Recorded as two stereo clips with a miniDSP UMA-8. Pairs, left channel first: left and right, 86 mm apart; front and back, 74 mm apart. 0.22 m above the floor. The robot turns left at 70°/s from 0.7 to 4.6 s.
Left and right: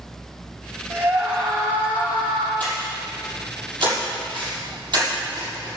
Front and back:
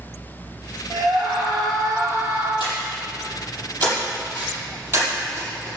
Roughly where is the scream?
Behind right.